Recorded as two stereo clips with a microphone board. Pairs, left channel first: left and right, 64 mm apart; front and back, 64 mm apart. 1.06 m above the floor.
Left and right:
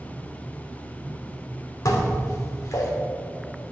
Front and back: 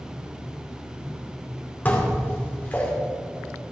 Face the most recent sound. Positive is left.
turn(degrees=60)